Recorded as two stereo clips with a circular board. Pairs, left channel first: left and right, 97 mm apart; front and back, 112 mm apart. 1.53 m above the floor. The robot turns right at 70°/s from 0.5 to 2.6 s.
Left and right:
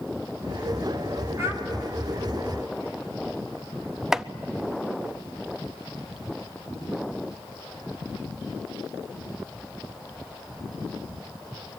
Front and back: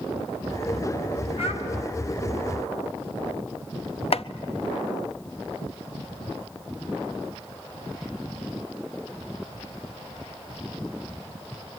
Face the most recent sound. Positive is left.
turn(degrees=-5)